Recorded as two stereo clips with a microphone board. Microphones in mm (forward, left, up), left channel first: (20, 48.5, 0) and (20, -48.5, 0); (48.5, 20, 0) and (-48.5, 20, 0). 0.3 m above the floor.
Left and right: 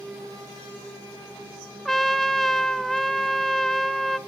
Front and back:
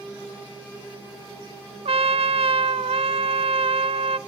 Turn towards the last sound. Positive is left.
turn(degrees=175)